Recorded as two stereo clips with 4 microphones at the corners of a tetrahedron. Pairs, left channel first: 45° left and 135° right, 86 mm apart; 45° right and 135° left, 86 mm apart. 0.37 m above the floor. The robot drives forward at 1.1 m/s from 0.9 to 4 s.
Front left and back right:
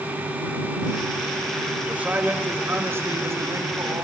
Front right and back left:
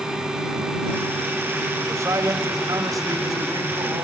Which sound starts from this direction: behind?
A man speaking, at 1.9 s.